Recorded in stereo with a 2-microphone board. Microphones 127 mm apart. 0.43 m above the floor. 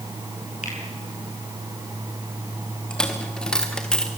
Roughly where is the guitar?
No guitar in this recording.